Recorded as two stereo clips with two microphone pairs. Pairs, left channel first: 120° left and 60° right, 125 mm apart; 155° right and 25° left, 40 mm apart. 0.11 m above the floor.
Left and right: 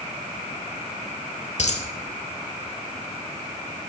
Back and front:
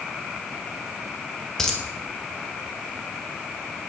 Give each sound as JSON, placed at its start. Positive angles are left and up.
{"t": 1.6, "sound": "a dropped coin", "azimuth_deg": 130, "distance_m": 0.9}